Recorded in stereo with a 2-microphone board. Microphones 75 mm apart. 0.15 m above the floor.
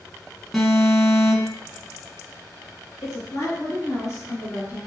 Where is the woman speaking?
40° left (ahead or behind), 2 m.